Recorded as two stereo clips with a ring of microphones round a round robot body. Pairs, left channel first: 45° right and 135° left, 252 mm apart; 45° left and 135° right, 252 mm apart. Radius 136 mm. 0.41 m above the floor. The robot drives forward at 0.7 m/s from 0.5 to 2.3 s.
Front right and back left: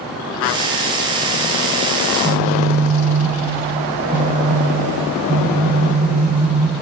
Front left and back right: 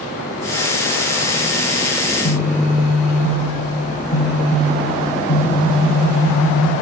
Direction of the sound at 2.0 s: 70° left.